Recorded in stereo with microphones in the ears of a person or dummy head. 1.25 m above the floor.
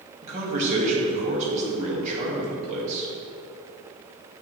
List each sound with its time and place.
0.2 s a man speaking: 40° right (ahead or behind), 1.7 m